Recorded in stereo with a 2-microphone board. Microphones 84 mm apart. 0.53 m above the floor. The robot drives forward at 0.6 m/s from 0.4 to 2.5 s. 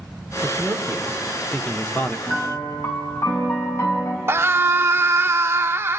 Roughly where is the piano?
Left.